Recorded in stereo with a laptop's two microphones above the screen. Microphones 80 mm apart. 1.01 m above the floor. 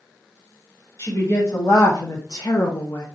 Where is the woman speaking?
35° left (ahead or behind), 1.3 m.